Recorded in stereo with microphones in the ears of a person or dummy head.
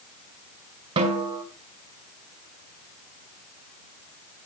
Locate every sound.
1.0 s a snare drum: 25° right (ahead or behind), 1.9 m